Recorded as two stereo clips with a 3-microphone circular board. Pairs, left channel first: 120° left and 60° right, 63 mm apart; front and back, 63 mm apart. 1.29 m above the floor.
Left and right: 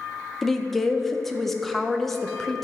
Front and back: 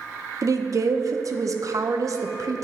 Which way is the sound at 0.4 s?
155° right.